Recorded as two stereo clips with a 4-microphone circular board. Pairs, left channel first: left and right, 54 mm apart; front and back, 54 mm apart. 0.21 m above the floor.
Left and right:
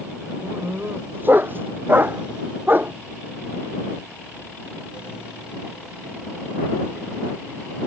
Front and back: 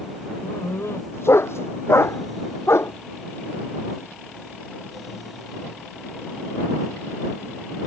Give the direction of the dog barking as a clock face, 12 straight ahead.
1 o'clock.